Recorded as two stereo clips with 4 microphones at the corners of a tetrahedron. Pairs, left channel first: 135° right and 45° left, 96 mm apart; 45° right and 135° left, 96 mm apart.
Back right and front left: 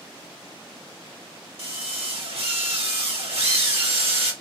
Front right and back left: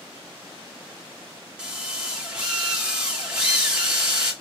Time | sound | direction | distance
1.6 | a drill | 55° left | 1.4 m